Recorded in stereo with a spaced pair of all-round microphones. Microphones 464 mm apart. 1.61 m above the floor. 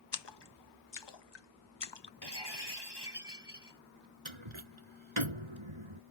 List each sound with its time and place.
0.1 s a splash: 65° left (ahead or behind)
2.2 s breaking glass: 60° left (ahead or behind)
4.2 s a door slam: 85° right